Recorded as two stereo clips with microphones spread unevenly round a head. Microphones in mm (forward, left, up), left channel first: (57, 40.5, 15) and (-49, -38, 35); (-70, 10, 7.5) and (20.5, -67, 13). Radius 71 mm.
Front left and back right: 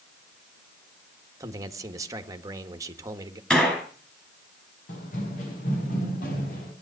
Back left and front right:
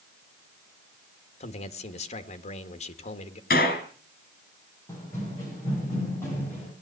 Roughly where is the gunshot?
Behind left.